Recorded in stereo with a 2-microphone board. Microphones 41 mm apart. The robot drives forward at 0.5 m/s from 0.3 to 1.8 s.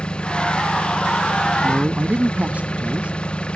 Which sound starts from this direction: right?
A man speaking, at 1.6 s.